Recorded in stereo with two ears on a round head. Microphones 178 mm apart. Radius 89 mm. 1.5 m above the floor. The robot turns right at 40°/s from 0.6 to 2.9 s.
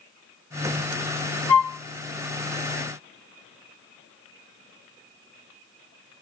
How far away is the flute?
About 1.0 m.